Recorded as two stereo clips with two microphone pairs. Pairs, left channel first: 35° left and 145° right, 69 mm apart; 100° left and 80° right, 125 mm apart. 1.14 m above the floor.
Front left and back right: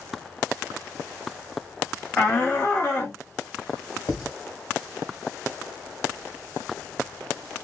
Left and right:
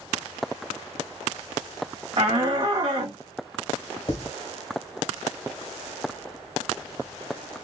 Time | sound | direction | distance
2.2 | a shout | 40° right | 0.5 m
4.1 | writing | 55° left | 1.8 m